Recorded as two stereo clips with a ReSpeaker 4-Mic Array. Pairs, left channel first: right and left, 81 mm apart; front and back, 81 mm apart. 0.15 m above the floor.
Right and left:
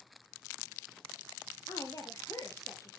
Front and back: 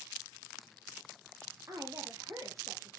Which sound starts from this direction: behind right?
A woman speaking, at 1.7 s.